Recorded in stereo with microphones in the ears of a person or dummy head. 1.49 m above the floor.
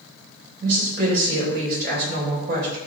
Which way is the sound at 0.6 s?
70° right (ahead or behind).